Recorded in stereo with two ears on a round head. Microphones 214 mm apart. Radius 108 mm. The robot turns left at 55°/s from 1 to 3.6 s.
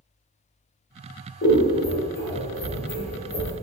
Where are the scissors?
35° left (ahead or behind), 1.2 m; by 3.5 s 30° left (ahead or behind), 1.2 m.